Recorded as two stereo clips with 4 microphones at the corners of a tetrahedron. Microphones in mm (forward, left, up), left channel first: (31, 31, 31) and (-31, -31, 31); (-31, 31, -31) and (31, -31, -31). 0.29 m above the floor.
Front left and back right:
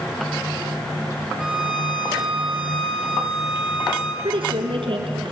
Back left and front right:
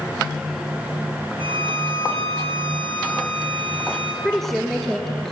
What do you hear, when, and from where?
1.4 s a violin: 50° right, 2.5 m
4.2 s a woman speaking: 140° right, 3.5 m